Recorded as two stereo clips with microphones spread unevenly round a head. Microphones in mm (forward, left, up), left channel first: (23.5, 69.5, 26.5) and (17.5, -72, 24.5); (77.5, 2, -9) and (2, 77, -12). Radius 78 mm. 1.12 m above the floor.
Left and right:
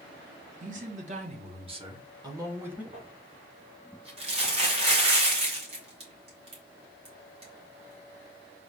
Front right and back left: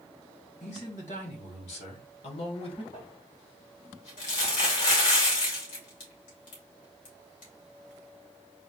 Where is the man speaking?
70° right, 1.5 m; by 2.8 s 15° right, 1.2 m.